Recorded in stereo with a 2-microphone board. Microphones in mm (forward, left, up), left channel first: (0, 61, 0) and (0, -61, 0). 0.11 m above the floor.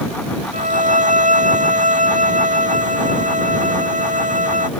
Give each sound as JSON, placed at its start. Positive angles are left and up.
{"t": 0.5, "sound": "a violin", "side_deg": -80}